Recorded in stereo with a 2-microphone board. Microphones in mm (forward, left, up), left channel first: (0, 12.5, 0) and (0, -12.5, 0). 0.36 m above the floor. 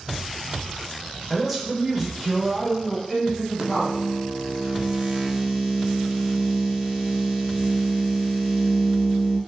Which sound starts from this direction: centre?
A man speaking, at 1.3 s.